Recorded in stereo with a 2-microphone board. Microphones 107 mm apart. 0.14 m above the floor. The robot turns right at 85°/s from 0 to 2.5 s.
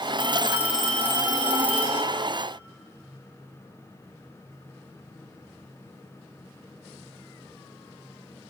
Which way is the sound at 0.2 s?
55° right.